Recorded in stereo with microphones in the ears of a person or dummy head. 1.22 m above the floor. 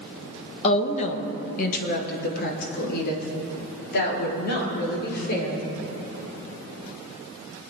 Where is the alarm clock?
No alarm clock in this recording.